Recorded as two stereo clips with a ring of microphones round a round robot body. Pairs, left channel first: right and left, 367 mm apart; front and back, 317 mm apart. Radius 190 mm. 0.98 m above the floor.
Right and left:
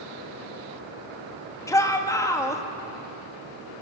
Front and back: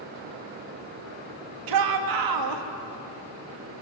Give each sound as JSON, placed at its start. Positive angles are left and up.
{"t": 1.7, "sound": "a shout", "azimuth_deg": -170, "distance_m": 2.0}